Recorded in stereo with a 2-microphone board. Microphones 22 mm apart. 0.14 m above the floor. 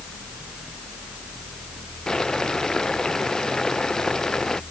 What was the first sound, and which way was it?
Boiling, 25° left (ahead or behind).